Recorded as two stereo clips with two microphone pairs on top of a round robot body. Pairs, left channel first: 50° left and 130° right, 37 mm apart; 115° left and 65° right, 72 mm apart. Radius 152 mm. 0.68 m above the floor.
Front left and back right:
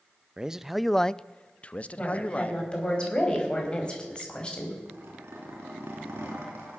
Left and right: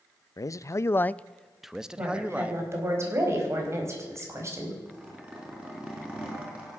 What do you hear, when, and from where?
0.4 s a man speaking: 150° left, 0.6 m; by 2.6 s 5° left, 1.2 m
2.0 s a woman speaking: 10° right, 4 m
4.8 s a zipper: 140° right, 3 m